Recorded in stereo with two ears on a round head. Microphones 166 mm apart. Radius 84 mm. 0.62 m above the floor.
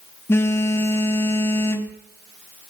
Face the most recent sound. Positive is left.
turn(degrees=15)  # may be behind; listen again after turning